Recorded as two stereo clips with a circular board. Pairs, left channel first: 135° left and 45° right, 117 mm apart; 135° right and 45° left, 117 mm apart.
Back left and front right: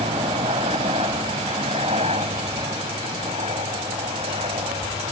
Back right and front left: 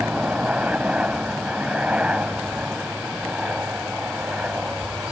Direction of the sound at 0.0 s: 35° right.